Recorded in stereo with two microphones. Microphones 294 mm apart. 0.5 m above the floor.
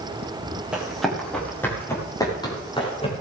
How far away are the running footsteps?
About 8 m.